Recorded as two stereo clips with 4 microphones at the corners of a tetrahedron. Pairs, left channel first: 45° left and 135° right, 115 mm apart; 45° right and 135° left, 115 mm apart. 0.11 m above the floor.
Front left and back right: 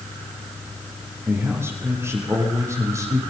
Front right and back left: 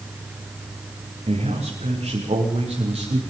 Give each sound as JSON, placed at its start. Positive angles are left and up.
{"t": 1.3, "sound": "a man speaking", "azimuth_deg": 155, "distance_m": 8.0}